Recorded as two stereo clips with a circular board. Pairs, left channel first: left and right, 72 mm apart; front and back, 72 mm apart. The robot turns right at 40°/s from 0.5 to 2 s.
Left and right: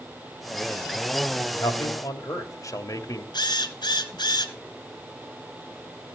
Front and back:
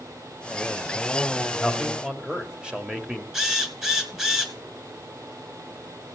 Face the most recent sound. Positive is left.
turn(degrees=100)